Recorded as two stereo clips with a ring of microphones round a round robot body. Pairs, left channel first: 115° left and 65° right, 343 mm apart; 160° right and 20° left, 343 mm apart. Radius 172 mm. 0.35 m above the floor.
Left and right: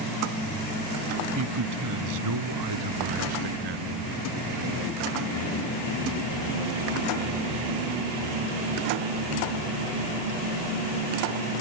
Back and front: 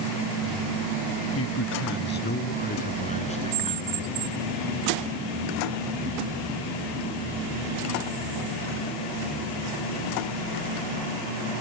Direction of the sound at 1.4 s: 110° right.